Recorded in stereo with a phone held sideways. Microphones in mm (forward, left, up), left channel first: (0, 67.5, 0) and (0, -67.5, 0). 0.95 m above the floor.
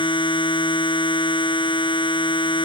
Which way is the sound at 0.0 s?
40° left (ahead or behind).